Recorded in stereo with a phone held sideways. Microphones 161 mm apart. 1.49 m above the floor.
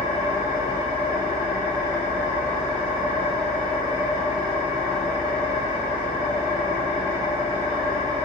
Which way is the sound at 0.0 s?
45° left (ahead or behind).